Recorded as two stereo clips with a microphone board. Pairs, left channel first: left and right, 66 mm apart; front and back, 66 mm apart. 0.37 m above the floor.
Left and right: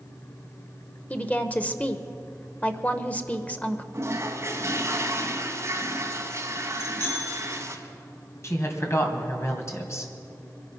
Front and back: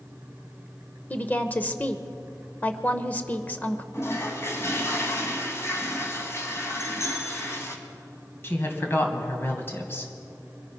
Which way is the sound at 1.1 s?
40° left.